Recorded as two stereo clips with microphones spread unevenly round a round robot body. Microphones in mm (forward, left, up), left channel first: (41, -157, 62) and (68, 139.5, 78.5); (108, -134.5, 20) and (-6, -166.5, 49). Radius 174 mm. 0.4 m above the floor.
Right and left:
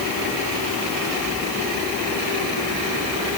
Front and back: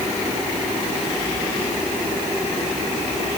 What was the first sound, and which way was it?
Only background noise.